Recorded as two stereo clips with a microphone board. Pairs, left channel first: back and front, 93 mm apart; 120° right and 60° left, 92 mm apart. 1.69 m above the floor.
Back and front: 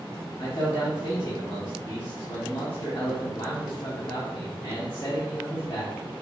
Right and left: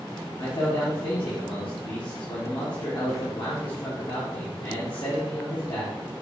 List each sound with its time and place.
0.4 s a man speaking: 150° right, 1.8 m